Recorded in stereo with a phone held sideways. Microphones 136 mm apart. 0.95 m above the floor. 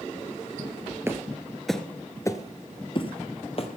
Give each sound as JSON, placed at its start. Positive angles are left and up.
{"t": 1.1, "sound": "footsteps", "side_deg": -20, "distance_m": 1.1}